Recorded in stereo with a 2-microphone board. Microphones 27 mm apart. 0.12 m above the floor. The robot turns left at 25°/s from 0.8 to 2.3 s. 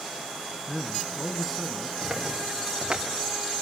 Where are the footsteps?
25° right (ahead or behind), 4 m; by 3.0 s 35° right (ahead or behind), 3.5 m.